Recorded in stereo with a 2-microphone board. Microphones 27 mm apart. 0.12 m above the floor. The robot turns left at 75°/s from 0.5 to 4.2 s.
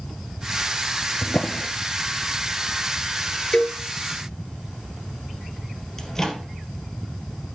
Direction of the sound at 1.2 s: 40° left (ahead or behind).